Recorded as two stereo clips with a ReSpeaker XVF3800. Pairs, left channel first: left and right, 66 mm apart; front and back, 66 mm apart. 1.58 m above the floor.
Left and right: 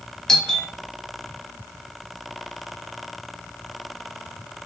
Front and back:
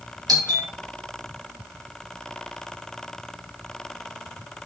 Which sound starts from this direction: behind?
A doorbell, at 0.3 s.